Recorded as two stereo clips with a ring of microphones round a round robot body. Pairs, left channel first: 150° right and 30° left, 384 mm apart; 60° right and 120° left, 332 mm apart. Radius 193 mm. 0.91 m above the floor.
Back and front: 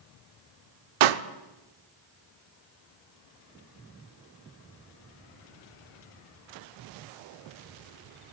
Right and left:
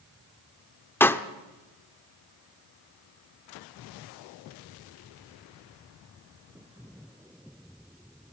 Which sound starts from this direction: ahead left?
A pop, at 1.0 s.